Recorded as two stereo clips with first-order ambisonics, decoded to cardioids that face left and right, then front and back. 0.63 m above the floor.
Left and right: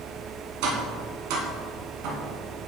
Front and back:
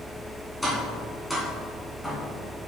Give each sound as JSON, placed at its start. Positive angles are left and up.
{"t": 0.6, "sound": "tapping", "azimuth_deg": -85, "distance_m": 1.9}